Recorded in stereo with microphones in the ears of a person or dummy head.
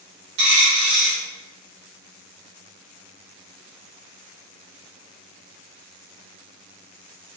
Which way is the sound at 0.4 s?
60° right (ahead or behind).